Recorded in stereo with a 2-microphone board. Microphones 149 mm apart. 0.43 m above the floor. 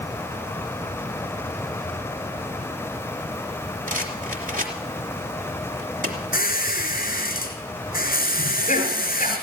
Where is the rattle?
65° right (ahead or behind), 3 m.